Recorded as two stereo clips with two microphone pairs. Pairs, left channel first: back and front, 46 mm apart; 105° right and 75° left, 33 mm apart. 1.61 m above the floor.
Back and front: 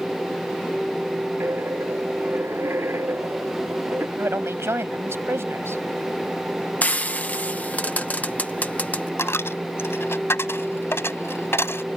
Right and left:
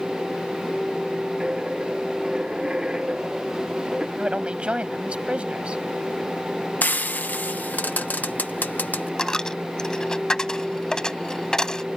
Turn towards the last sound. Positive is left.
turn(degrees=-175)